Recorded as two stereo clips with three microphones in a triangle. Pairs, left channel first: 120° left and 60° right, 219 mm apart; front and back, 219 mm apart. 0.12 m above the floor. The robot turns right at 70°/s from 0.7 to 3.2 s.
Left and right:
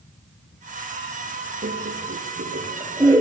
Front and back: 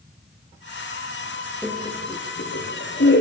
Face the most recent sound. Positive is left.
turn(degrees=25)